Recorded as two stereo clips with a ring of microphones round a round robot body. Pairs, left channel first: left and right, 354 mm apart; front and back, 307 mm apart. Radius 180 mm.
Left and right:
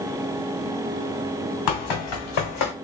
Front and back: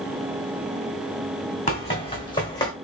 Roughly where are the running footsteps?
Ahead left.